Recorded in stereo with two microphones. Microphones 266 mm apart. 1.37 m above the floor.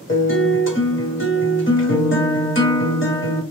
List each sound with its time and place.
0.1 s a guitar: 45° left (ahead or behind), 1.5 m